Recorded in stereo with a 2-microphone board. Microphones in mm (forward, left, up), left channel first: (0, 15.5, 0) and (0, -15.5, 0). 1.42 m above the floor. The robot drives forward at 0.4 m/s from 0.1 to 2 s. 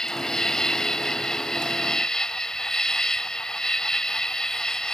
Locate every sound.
0.0 s an insect: 20° left (ahead or behind)